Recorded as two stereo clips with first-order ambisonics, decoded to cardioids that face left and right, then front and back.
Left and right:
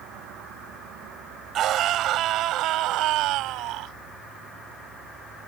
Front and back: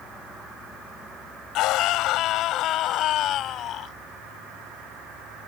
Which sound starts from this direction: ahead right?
A scream, at 1.6 s.